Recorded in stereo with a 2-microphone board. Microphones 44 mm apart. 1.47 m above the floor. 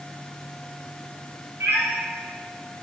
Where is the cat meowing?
70° right (ahead or behind), 3.5 m.